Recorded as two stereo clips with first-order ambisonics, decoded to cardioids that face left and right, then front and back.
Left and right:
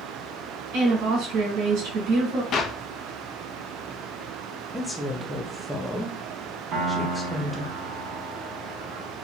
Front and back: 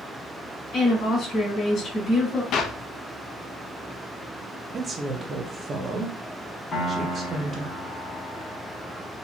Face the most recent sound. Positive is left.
turn(degrees=-55)